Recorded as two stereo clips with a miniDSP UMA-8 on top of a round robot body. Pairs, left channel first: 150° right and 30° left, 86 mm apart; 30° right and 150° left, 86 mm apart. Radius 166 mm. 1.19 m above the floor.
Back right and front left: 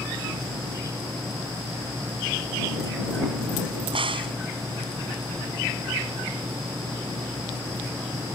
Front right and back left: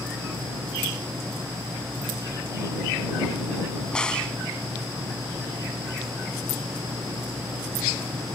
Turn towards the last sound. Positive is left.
turn(degrees=50)